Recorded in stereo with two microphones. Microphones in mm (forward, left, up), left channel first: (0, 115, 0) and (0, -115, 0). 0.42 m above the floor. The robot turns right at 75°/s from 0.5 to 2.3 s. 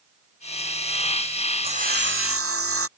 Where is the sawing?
155° right; by 2.9 s 105° right.